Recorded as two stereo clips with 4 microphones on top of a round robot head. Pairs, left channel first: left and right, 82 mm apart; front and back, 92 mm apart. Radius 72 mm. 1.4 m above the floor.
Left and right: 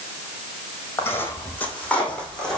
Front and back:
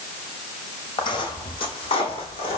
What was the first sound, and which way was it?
Footsteps, 30° left.